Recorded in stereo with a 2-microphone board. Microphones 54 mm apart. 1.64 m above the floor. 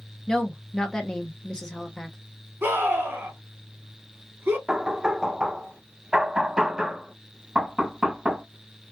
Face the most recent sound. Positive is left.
turn(degrees=-15)  # may be behind; listen again after turning